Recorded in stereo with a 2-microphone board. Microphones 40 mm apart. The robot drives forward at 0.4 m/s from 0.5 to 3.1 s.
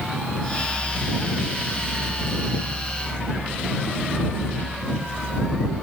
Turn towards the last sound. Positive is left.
No sound to turn to.